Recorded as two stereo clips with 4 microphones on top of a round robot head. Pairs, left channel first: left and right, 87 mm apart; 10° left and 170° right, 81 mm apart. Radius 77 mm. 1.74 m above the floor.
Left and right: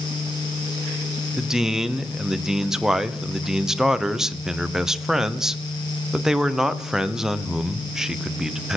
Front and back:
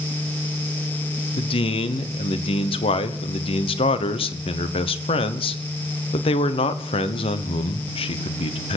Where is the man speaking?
5° right, 1.1 m.